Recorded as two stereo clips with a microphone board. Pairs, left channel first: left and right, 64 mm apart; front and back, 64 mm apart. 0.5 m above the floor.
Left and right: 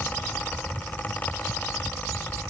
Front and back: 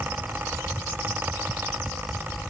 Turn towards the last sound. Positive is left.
No sound to turn to.